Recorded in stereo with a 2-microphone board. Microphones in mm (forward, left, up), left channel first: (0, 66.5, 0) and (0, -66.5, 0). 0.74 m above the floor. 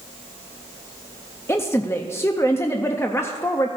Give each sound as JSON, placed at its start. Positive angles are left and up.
{"t": 1.5, "sound": "a woman speaking", "side_deg": 20, "distance_m": 0.5}